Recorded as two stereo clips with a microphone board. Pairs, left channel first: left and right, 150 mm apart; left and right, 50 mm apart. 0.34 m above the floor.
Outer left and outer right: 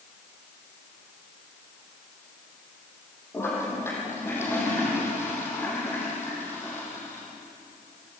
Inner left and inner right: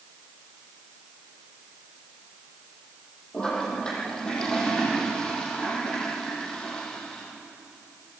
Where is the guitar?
I don't hear a guitar.